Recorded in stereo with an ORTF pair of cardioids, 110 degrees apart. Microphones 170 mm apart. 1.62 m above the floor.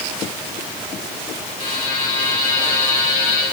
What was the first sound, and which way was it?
A buzzer, 50° left.